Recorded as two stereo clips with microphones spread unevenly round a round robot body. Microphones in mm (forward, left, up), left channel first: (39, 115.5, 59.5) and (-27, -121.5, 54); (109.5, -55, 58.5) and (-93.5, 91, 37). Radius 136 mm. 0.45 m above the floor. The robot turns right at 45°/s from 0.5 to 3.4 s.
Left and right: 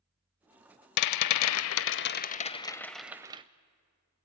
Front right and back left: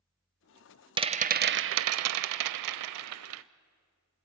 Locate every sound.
1.0 s a rattle: 75° left, 0.6 m; by 3.4 s 175° right, 0.6 m